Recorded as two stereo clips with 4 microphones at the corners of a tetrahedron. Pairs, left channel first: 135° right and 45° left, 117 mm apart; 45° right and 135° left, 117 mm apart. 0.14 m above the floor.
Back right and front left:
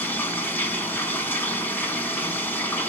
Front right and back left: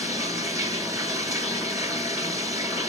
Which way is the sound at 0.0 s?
165° left.